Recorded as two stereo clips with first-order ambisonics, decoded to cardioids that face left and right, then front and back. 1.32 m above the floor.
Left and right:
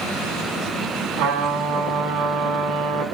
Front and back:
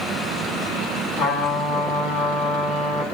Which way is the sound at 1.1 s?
55° right.